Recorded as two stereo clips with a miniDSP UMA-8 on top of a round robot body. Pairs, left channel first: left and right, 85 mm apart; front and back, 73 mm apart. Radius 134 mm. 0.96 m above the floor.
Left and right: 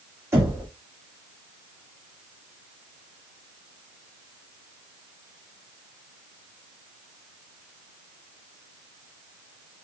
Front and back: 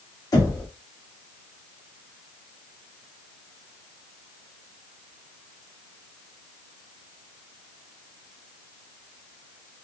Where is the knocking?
35° right, 2.5 m.